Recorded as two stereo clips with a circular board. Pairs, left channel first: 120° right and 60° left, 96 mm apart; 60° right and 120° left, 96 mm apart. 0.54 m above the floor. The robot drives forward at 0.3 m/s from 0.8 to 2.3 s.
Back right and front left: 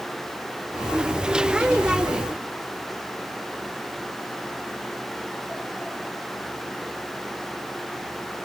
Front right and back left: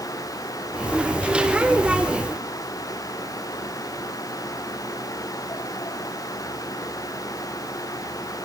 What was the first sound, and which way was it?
Only background noise.